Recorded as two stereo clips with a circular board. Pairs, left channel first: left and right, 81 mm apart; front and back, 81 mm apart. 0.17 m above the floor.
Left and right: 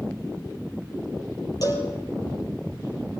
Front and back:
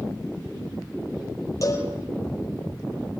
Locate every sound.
1.6 s a cowbell: 50° left, 5 m